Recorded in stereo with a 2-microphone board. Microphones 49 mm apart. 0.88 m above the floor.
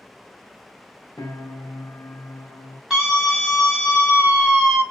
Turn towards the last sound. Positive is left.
turn(degrees=-5)  # may be behind; listen again after turning